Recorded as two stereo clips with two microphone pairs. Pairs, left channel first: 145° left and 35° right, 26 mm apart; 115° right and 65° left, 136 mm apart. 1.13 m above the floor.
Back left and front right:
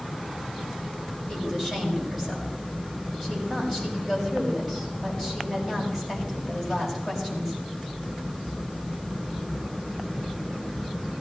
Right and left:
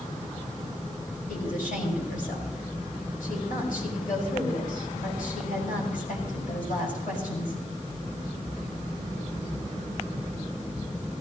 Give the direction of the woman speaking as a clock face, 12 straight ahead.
4 o'clock.